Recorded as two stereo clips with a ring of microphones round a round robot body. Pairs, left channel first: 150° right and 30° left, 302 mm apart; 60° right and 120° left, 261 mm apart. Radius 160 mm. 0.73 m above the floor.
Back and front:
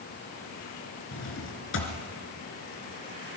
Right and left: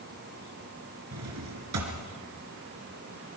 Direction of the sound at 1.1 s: 160° left.